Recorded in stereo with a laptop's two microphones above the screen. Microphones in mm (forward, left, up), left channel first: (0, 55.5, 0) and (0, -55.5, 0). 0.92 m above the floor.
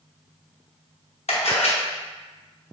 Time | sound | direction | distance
1.3 | a camera shutter | 70° left (ahead or behind) | 0.7 m